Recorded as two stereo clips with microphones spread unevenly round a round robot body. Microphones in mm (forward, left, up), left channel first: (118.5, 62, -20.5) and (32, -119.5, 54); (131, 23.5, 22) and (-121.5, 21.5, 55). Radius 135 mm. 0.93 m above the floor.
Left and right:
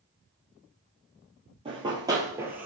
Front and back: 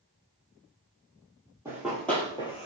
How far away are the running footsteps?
About 1.2 m.